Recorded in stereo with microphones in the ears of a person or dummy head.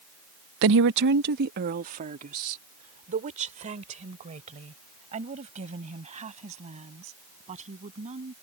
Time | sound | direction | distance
0.6 | a woman speaking | 70° right (ahead or behind) | ?